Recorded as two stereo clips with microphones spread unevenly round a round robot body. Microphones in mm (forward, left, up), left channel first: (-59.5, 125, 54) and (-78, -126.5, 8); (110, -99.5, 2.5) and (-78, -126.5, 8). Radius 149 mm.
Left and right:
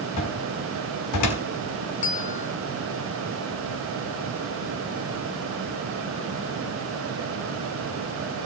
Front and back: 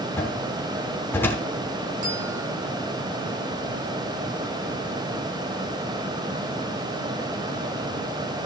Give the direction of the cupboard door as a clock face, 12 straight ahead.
9 o'clock.